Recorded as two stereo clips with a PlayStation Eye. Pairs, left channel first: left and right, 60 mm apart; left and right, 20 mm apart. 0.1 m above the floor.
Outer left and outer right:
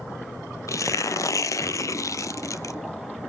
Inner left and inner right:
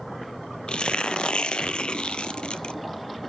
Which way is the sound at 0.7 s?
65° left (ahead or behind).